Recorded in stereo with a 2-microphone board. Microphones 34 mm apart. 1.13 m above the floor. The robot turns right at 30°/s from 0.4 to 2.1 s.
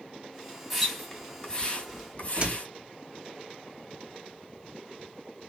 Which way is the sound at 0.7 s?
Centre (ahead or behind).